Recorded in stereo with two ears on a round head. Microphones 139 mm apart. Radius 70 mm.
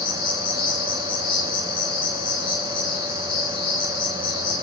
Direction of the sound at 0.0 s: 30° left (ahead or behind).